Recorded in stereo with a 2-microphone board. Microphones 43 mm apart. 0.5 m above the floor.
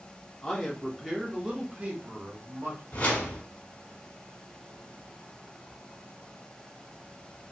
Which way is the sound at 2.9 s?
30° left (ahead or behind).